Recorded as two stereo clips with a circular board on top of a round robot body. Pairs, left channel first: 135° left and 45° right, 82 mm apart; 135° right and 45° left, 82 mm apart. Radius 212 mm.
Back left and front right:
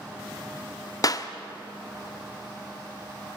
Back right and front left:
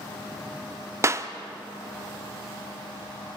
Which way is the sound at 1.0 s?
95° left.